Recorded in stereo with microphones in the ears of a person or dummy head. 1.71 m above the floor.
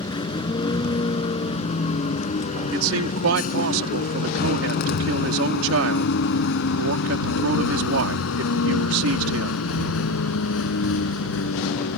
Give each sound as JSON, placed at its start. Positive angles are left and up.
{"t": 0.0, "sound": "a vehicle", "side_deg": 25}
{"t": 2.7, "sound": "a man speaking", "side_deg": -75}